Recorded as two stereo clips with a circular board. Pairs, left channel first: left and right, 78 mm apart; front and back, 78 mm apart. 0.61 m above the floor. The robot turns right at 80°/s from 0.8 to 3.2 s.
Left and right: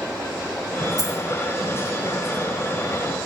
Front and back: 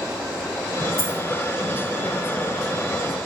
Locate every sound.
1.0 s a dropped coin: 125° right, 1.4 m; by 1.2 s 110° right, 1.4 m